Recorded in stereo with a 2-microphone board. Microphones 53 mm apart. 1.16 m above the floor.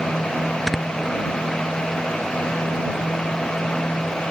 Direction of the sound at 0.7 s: Centre (ahead or behind).